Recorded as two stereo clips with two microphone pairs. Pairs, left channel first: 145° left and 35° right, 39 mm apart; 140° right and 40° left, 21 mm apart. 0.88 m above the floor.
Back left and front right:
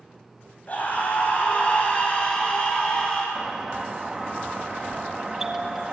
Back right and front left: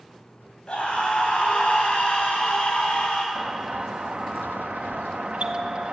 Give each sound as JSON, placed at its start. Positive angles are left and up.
{"t": 0.7, "sound": "a scream", "azimuth_deg": -170, "distance_m": 6.0}
{"t": 3.4, "sound": "a doorbell", "azimuth_deg": 40, "distance_m": 1.8}